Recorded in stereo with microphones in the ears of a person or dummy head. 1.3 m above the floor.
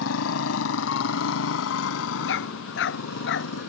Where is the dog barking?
70° left (ahead or behind).